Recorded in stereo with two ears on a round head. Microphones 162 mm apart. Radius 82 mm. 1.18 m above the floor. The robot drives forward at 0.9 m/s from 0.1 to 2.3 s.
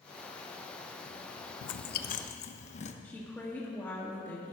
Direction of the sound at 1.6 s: 80° left.